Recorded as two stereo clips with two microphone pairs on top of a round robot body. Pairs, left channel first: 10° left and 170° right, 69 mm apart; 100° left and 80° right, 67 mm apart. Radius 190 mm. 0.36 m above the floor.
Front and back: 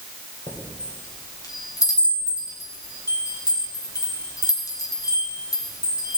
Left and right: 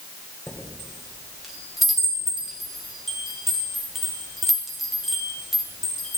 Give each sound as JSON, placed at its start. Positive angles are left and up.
{"t": 0.5, "sound": "a chime", "azimuth_deg": 10, "distance_m": 3.0}